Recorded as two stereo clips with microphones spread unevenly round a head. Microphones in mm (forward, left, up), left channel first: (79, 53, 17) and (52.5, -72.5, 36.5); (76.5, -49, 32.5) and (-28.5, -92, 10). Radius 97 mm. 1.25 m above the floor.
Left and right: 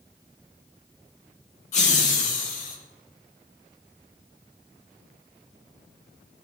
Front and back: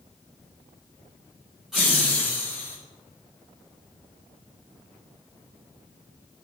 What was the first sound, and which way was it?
Laughter, 120° left.